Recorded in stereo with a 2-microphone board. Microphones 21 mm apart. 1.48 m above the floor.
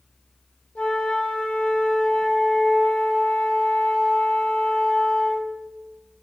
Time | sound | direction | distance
0.8 | a flute | 85° left | 0.9 m